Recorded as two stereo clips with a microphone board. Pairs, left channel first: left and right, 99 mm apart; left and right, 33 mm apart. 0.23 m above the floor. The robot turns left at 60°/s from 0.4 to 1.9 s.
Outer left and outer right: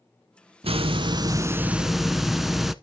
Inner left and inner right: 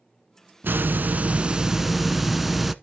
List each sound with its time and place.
0.6 s a hiss: 100° right, 0.5 m; by 2.7 s 175° right, 0.5 m